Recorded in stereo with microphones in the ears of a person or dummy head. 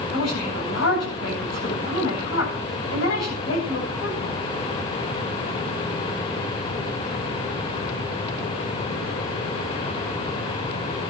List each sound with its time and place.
0.1 s a woman speaking: 65° left (ahead or behind), 9 m